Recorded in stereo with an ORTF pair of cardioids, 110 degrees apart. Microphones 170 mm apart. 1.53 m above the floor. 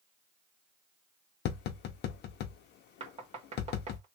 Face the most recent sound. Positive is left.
turn(degrees=-40)